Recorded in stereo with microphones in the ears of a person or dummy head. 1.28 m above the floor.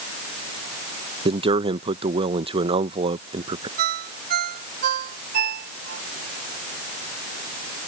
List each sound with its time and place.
1.2 s a man speaking: 30° right (ahead or behind)
3.8 s a ringtone: 55° right (ahead or behind)